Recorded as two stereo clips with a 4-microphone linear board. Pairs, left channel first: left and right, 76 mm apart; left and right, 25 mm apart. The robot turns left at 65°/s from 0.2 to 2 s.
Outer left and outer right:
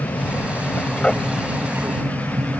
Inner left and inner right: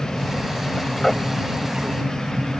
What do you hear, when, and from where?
0.0 s an aircraft: 55° left (ahead or behind); by 2.6 s 40° right (ahead or behind)